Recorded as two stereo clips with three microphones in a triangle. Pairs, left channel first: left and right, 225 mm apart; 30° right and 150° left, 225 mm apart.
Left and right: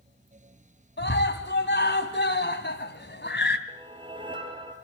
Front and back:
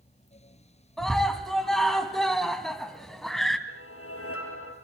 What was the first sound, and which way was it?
A scream, 60° left.